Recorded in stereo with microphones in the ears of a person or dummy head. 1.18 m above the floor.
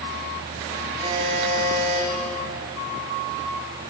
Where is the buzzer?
25° right (ahead or behind), 3.5 m.